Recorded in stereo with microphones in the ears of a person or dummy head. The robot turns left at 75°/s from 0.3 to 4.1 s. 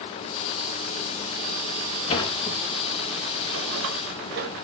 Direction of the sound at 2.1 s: 35° left (ahead or behind).